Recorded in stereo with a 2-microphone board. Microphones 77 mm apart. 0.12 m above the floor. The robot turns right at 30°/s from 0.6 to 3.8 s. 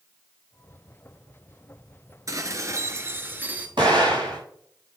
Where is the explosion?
85° right, 5 m; by 4.4 s 90° right, 5 m.